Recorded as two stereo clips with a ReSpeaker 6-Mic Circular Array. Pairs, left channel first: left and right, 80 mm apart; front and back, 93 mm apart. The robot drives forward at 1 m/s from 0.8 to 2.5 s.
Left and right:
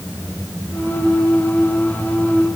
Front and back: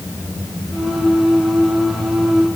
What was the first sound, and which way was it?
Only background noise.